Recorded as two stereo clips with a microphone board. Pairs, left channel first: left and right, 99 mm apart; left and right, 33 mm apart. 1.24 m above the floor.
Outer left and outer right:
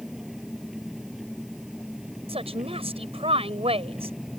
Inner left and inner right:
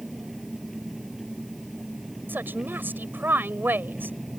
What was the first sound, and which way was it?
An engine running, 5° right (ahead or behind).